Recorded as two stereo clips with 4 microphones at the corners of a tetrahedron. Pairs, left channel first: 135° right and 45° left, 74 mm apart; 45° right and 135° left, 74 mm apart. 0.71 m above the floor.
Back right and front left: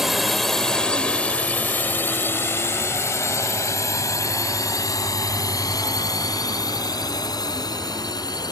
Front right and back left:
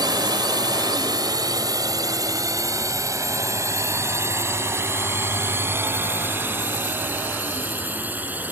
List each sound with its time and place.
0.0 s a drone: 130° left; by 8.5 s 160° right